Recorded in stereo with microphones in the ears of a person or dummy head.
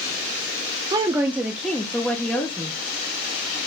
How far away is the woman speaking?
About 0.6 m.